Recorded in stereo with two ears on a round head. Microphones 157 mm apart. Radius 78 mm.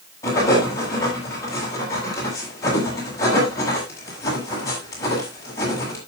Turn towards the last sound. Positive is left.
turn(degrees=15)  # may be behind; listen again after turning